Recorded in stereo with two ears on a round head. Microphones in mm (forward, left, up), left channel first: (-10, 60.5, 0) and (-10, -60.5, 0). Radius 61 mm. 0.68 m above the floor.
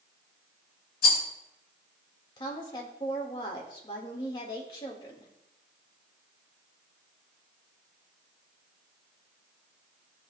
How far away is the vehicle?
No vehicle in this recording.